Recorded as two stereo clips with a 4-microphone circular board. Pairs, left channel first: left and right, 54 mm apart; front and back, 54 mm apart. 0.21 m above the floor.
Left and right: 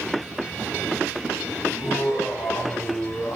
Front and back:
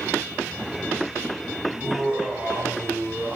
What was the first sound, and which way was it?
Laughter, 105° left.